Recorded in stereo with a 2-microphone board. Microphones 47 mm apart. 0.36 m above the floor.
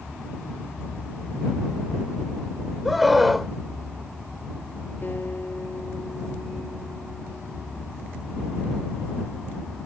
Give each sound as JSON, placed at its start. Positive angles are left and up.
{"t": 2.9, "sound": "a scream", "side_deg": 0}
{"t": 5.0, "sound": "a guitar", "side_deg": 40}